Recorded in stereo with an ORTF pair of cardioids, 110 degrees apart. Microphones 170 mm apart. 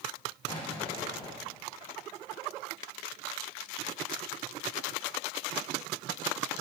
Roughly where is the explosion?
Ahead left.